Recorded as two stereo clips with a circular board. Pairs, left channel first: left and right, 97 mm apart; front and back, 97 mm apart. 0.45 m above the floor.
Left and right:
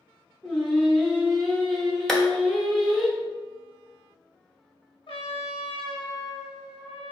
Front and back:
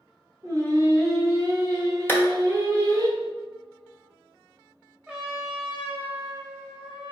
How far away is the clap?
About 0.8 m.